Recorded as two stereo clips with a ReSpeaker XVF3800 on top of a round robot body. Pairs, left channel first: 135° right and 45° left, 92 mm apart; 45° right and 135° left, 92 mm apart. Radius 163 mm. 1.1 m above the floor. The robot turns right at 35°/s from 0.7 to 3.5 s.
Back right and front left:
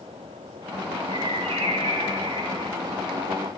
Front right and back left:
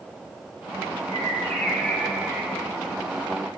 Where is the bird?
10° left, 4.5 m; by 2.8 s 70° left, 4.5 m.